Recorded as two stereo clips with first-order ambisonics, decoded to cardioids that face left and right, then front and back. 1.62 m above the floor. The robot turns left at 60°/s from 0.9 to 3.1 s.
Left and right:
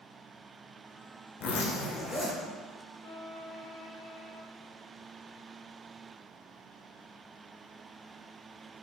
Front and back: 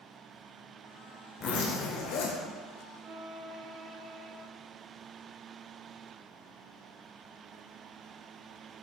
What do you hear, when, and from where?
1.4 s a zipper: 55° left, 1.5 m; by 2.4 s 5° right, 1.5 m
3.0 s a violin: 135° left, 1.1 m; by 4.4 s 125° left, 1.1 m